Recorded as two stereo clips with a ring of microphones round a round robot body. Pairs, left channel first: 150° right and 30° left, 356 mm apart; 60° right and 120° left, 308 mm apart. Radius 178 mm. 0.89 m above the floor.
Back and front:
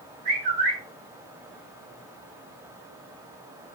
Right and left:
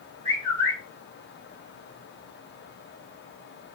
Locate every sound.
0.2 s a bird: 20° left, 1.2 m